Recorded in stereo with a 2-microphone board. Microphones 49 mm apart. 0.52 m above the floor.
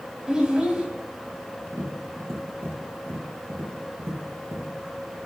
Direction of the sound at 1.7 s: 70° right (ahead or behind).